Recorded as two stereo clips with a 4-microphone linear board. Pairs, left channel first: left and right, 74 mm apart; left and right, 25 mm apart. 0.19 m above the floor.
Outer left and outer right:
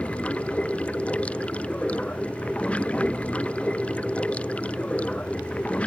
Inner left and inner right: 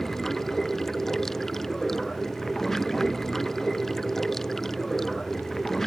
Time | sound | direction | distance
0.0 | running water | 15° left (ahead or behind) | ?